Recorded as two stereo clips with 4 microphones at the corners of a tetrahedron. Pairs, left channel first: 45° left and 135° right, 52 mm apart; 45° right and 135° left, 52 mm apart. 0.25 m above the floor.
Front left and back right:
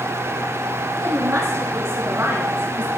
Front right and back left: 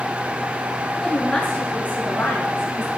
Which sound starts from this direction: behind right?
A woman speaking, at 1.0 s.